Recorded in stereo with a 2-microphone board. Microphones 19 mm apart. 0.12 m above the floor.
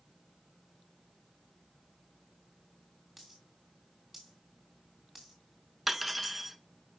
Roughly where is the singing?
I don't hear singing.